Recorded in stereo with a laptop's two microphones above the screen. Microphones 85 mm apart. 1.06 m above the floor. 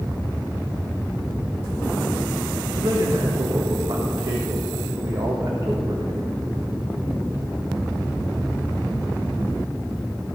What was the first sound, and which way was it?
A man speaking, 60° right (ahead or behind).